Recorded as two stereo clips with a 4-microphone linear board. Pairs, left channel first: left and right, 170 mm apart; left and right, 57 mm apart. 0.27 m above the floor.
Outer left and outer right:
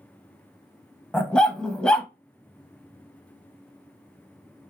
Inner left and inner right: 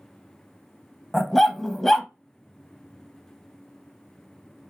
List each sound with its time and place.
1.1 s a dog barking: 5° left (ahead or behind), 0.5 m